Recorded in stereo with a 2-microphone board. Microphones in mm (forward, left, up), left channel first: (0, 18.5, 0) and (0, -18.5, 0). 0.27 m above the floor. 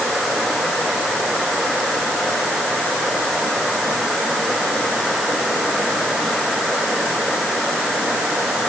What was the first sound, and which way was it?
Only background noise.